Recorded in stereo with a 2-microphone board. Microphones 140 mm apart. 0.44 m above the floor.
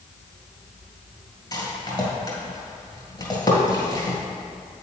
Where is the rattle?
30° left (ahead or behind), 1.8 m.